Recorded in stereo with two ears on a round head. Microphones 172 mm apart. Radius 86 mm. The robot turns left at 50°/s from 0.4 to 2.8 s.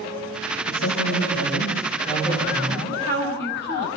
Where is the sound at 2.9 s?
55° left (ahead or behind), 9 m.